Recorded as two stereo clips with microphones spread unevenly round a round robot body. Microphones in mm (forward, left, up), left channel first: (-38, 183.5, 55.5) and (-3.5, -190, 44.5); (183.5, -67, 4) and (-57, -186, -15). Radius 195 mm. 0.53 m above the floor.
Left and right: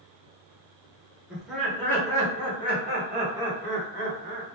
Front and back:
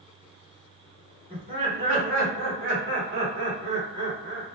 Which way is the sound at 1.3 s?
165° right.